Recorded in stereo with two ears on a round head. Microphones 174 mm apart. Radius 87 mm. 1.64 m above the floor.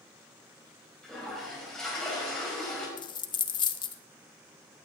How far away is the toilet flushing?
About 5 m.